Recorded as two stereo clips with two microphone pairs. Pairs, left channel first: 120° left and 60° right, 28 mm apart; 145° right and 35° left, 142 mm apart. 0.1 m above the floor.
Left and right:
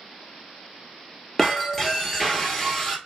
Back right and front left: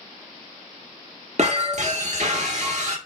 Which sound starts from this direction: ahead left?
Breaking glass, at 1.4 s.